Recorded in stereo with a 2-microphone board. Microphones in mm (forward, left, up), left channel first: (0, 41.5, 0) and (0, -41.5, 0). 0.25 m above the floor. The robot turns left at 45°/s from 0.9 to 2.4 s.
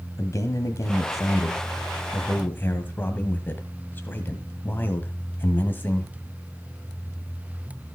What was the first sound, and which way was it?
A man speaking, 105° left.